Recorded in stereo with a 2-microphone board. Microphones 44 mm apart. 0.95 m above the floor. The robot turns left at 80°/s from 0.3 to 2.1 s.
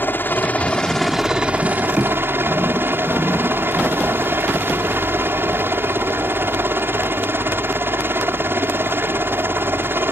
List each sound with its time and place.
0.0 s a helicopter: 65° left; by 10.1 s 80° right